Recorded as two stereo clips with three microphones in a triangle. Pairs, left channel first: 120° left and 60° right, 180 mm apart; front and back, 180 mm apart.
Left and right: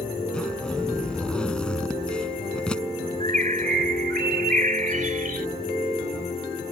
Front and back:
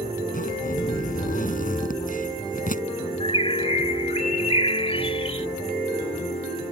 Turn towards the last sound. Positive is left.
turn(degrees=-45)